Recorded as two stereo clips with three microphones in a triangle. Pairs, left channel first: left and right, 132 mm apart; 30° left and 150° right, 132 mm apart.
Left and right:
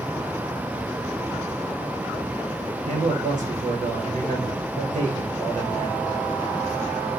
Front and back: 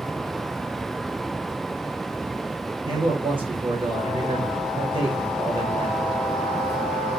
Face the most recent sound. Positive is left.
turn(degrees=-100)